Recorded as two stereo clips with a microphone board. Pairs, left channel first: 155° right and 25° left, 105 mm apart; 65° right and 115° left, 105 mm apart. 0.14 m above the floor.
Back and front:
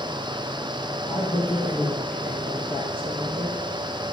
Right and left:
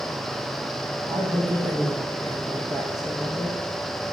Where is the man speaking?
165° left, 4.5 m.